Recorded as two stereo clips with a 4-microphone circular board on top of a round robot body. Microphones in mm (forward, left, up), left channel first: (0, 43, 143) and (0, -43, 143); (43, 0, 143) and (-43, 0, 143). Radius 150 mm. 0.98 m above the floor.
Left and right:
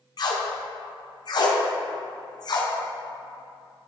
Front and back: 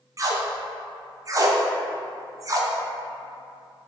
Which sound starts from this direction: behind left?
Tape being pulled, at 0.2 s.